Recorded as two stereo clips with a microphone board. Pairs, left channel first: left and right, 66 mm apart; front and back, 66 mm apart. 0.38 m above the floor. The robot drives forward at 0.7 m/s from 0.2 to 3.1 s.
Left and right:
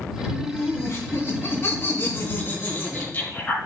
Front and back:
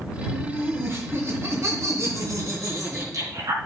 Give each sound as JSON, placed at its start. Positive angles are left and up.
{"t": 0.3, "sound": "laughter", "azimuth_deg": 125, "distance_m": 3.0}